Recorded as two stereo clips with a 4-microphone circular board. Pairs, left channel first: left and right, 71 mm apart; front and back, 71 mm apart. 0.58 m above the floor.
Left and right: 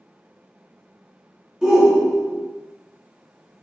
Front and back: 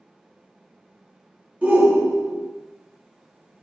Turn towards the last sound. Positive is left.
turn(degrees=-155)